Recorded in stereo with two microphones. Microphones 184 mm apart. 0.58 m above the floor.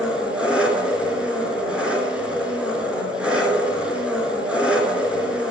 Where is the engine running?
5° right (ahead or behind), 3 m.